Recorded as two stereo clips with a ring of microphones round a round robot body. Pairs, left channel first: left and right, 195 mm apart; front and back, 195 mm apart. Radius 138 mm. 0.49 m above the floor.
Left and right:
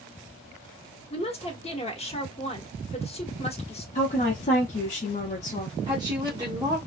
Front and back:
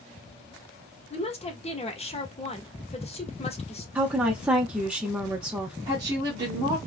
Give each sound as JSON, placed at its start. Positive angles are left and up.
{"t": 1.1, "sound": "a woman speaking", "azimuth_deg": 45, "distance_m": 0.9}
{"t": 4.0, "sound": "a woman speaking", "azimuth_deg": 100, "distance_m": 0.8}
{"t": 5.9, "sound": "a woman speaking", "azimuth_deg": -130, "distance_m": 0.9}